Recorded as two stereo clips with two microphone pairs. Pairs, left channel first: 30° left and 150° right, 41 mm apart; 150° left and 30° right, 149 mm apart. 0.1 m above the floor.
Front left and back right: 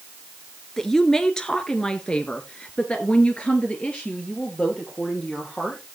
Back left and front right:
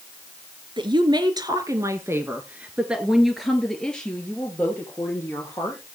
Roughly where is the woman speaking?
Ahead right.